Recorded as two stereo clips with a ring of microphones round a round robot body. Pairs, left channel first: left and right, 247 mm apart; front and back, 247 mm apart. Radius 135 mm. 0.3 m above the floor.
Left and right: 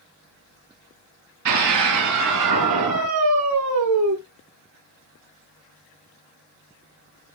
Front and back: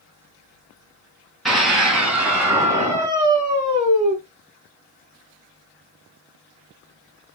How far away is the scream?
About 3.5 m.